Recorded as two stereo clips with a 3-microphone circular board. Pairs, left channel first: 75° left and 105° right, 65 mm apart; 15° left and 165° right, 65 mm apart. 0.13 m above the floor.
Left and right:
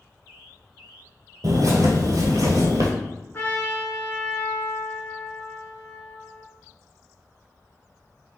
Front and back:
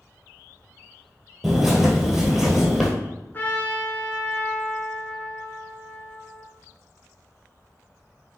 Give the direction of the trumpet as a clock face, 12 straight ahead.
10 o'clock.